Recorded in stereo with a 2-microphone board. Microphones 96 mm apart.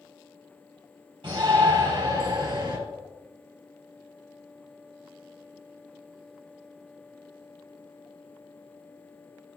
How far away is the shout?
About 3.5 m.